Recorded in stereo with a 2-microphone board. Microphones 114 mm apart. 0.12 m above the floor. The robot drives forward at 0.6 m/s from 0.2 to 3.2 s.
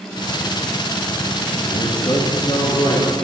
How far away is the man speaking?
About 1.5 m.